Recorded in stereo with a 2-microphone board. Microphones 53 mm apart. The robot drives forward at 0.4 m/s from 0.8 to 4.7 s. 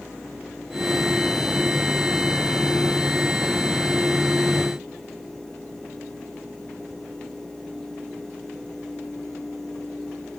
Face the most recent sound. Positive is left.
No sound to turn to.